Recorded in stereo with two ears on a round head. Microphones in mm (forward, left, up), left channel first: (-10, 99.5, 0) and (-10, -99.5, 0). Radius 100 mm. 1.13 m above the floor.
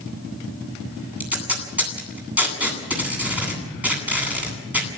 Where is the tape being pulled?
5° right (ahead or behind), 9 m.